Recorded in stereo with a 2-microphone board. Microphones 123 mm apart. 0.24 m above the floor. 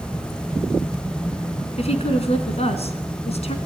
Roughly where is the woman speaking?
Left.